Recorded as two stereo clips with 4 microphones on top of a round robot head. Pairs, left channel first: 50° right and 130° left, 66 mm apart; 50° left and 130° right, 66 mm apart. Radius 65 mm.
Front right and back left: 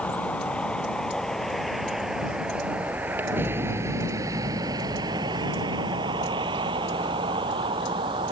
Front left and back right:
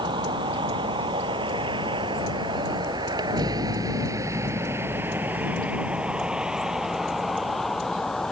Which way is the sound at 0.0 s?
120° right.